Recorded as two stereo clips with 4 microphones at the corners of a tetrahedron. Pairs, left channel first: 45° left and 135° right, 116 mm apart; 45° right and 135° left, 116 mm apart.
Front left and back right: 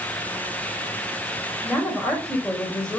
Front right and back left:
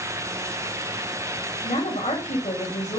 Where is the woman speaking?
35° right, 3.5 m.